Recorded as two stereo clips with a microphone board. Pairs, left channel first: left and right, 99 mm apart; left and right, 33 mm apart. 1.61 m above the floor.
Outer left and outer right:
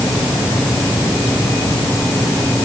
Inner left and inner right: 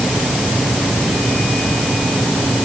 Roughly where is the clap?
No clap in this recording.